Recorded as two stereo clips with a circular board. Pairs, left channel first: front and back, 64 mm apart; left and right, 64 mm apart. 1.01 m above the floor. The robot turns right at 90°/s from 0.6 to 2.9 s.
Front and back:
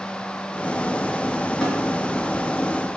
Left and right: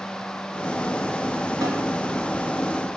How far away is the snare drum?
About 2 m.